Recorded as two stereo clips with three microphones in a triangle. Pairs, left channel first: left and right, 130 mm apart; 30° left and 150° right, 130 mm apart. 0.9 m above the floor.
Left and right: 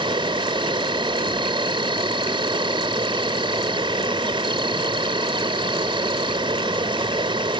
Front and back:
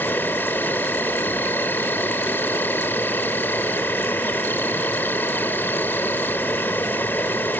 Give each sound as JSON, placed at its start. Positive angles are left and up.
{"t": 0.0, "sound": "an insect", "azimuth_deg": -45}